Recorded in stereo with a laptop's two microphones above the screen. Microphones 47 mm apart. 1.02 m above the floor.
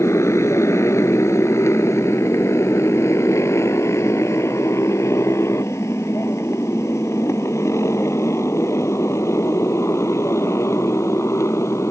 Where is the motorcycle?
75° left (ahead or behind); by 11.9 s 85° left.